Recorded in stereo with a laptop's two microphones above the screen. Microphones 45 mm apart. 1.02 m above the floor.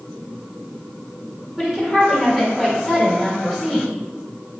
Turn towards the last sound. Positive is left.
turn(degrees=-10)  # may be behind; listen again after turning